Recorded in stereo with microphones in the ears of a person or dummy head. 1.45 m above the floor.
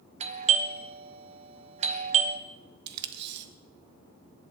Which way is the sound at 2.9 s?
60° right (ahead or behind).